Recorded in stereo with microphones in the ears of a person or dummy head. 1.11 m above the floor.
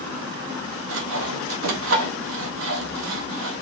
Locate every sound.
0.9 s sawing: 75° right (ahead or behind), 1.1 m